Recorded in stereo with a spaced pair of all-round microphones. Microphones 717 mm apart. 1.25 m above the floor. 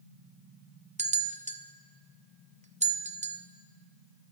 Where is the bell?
10° right (ahead or behind), 0.5 m.